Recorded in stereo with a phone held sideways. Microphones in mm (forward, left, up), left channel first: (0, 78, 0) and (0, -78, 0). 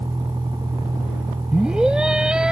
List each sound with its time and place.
0.0 s a vehicle: 25° right (ahead or behind)
1.5 s a scream: 5° right (ahead or behind)